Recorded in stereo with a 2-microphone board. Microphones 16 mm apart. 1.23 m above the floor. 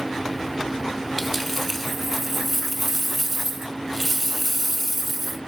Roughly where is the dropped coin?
Centre.